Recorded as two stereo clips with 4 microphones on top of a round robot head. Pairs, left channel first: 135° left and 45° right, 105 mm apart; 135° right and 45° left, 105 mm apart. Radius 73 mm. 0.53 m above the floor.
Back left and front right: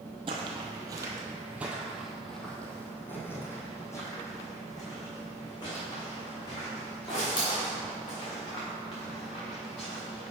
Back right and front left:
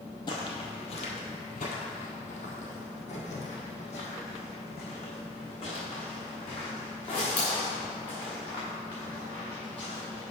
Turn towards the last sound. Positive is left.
turn(degrees=180)